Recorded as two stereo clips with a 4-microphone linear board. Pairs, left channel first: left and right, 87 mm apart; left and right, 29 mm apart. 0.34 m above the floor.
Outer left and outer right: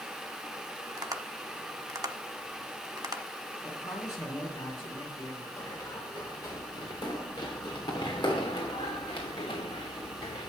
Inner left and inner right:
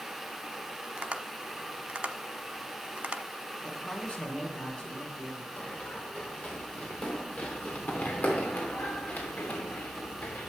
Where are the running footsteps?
35° left (ahead or behind), 4 m; by 10.5 s 80° left, 2.0 m.